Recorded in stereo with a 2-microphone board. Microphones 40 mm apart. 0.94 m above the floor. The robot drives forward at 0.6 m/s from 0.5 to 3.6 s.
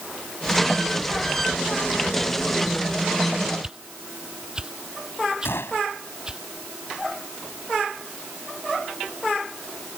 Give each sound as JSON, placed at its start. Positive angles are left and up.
{"t": 3.6, "sound": "a whoosh", "side_deg": -20}
{"t": 5.5, "sound": "a gunshot", "side_deg": 90}